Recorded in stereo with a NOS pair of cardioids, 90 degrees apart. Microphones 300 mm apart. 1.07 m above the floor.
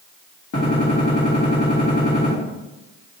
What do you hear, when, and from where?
0.5 s a gunshot: 55° left, 2.0 m